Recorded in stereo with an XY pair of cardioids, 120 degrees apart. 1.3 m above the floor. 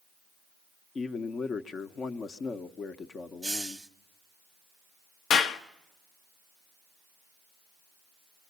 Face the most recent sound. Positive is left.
turn(degrees=70)